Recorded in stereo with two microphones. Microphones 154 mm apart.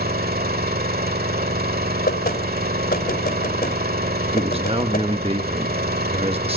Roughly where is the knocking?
Left.